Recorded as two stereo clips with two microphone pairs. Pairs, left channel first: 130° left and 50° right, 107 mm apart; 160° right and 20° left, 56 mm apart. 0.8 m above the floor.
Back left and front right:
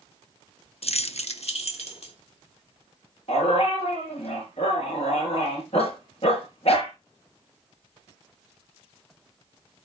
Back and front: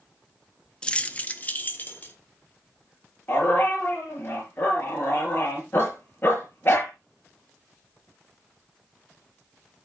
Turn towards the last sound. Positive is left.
turn(degrees=150)